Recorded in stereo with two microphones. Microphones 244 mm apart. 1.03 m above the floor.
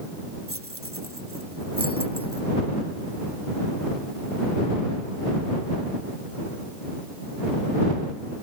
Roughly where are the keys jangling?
Right.